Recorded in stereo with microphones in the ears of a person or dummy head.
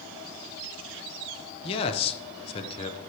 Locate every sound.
1.6 s a man speaking: 25° left (ahead or behind), 0.7 m